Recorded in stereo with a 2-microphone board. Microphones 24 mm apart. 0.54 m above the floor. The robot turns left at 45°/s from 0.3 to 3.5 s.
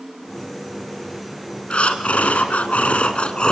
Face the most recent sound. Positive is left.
turn(degrees=45)